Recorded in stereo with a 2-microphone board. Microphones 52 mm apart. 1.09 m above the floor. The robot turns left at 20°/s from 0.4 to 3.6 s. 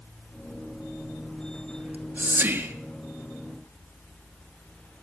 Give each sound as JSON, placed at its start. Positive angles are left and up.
{"t": 1.8, "sound": "whispering", "side_deg": -35, "distance_m": 1.6}